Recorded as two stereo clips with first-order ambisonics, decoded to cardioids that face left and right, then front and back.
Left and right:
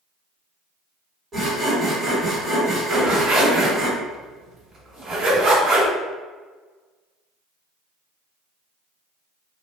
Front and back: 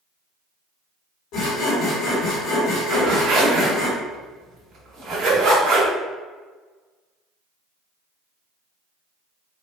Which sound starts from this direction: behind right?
A zipper, at 2.9 s.